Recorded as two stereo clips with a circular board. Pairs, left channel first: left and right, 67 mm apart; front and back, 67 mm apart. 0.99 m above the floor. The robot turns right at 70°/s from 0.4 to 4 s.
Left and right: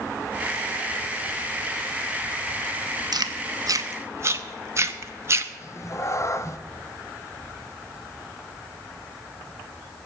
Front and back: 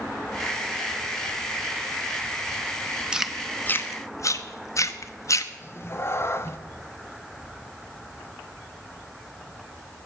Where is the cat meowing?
50° left, 0.7 m.